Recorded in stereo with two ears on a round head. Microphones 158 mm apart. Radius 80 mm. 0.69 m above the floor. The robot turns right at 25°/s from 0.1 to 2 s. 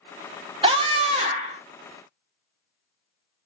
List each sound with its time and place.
0.6 s a scream: 30° right (ahead or behind), 0.8 m; by 1.6 s 35° right (ahead or behind), 0.8 m